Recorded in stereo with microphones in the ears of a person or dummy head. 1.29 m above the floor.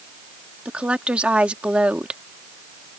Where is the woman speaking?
5° right (ahead or behind).